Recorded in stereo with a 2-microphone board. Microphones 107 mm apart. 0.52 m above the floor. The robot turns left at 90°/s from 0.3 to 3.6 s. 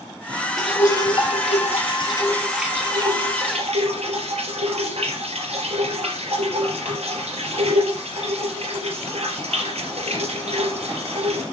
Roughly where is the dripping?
Behind.